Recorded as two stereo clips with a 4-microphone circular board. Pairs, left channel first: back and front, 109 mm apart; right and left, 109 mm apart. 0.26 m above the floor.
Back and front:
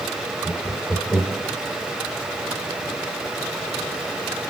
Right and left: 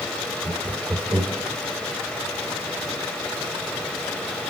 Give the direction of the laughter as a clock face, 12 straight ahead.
9 o'clock.